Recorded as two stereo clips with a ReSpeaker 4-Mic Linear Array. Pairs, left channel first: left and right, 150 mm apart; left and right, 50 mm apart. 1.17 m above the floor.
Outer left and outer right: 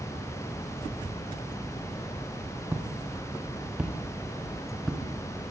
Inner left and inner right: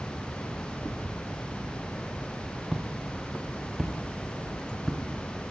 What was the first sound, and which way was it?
Footsteps, 15° right (ahead or behind).